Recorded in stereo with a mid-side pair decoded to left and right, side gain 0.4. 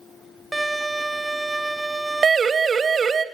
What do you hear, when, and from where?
0.5 s a violin: 15° right, 0.7 m
2.2 s a siren: 45° right, 2.5 m